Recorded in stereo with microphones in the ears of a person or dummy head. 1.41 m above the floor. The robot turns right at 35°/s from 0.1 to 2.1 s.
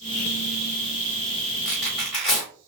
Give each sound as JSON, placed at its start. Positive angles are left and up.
{"t": 1.6, "sound": "tearing paper", "side_deg": 0, "distance_m": 1.2}